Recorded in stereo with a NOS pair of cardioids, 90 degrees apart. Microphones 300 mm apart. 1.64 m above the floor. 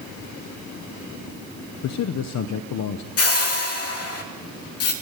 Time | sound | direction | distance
1.8 | a man speaking | 70° left | 1.0 m
3.2 | a whoosh | 55° left | 2.5 m